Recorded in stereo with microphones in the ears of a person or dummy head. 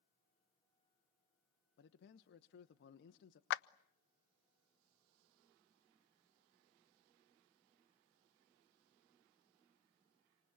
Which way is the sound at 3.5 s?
65° left (ahead or behind).